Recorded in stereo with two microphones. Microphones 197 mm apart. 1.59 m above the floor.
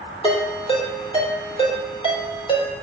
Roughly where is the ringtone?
Left.